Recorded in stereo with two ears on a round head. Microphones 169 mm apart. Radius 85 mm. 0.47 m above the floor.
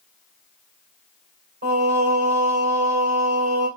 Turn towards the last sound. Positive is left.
turn(degrees=-65)  # may be behind; listen again after turning